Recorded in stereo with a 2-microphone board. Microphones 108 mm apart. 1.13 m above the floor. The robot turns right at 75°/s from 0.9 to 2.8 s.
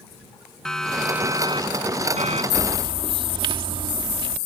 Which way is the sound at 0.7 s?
5° left (ahead or behind).